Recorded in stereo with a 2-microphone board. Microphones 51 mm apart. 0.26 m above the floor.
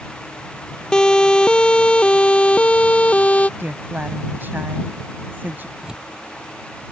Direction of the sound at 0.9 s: 15° left (ahead or behind).